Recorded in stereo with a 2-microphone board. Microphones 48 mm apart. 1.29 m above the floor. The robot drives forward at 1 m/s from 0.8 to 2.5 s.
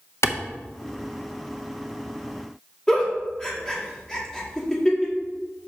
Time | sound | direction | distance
0.2 | a clap | 75° left (ahead or behind) | 0.7 m
2.9 | a giggle | 15° left (ahead or behind) | 1.9 m